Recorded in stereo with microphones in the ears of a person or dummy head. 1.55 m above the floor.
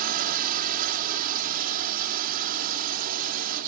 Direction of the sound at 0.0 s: 50° right (ahead or behind).